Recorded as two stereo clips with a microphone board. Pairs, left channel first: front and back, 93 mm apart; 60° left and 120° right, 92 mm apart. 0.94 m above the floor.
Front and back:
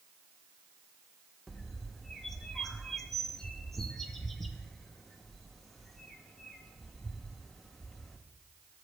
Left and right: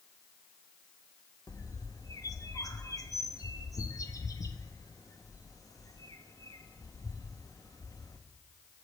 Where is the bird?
85° left, 0.6 m.